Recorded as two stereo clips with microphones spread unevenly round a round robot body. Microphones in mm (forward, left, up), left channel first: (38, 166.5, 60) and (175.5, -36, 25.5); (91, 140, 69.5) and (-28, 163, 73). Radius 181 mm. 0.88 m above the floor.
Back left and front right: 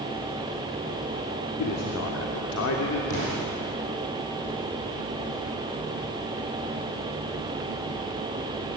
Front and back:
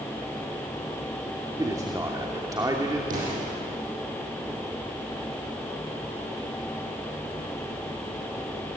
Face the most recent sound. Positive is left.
turn(degrees=170)